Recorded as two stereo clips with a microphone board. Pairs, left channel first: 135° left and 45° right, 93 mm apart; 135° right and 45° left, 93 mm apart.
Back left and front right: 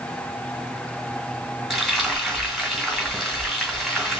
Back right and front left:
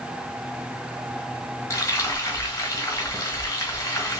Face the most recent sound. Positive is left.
turn(degrees=-135)